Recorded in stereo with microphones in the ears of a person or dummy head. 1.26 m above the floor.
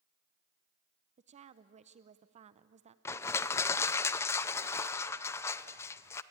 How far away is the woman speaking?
About 0.6 m.